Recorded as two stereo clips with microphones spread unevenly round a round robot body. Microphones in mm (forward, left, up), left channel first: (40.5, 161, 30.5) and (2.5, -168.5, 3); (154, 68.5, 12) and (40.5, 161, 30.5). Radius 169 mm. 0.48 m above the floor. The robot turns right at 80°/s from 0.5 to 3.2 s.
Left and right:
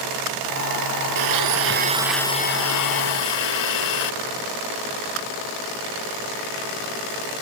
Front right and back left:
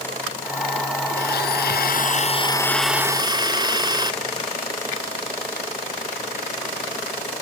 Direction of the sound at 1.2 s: 85° right.